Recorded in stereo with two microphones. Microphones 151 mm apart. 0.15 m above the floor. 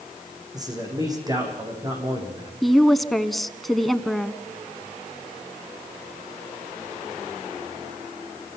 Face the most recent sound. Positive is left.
turn(degrees=0)  # may be behind; listen again after turning